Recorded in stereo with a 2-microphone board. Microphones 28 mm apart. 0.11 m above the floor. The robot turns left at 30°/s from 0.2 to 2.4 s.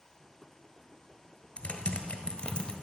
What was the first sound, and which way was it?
Typing on a keyboard, 45° left (ahead or behind).